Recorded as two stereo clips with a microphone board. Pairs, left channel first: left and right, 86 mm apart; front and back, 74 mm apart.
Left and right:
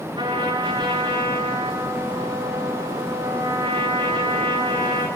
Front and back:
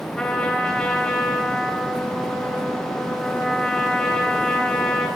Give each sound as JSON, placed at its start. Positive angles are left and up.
{"t": 0.2, "sound": "a trumpet", "azimuth_deg": -80, "distance_m": 3.5}